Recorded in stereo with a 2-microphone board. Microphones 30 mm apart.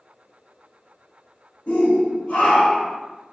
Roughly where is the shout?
Left.